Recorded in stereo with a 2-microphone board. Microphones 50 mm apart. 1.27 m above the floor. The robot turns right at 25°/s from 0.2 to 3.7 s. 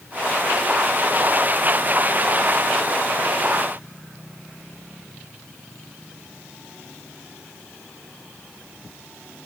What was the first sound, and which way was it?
Only background noise.